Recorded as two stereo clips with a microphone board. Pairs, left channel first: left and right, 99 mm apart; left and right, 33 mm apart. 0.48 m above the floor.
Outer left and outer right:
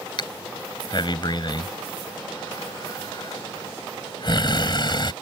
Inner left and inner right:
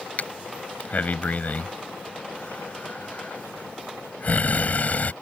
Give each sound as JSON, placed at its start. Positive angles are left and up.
{"t": 0.2, "sound": "breathing", "side_deg": 50}